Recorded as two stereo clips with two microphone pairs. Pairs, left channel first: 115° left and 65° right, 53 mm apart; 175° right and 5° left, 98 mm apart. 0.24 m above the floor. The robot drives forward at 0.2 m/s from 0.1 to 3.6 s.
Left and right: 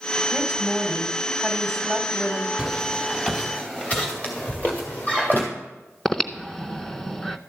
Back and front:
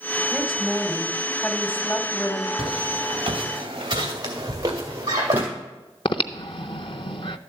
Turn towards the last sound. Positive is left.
turn(degrees=-165)